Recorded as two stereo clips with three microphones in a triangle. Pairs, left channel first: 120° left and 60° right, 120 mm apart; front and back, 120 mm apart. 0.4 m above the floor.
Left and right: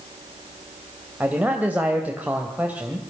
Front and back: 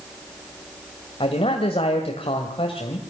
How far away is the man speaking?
About 2.5 m.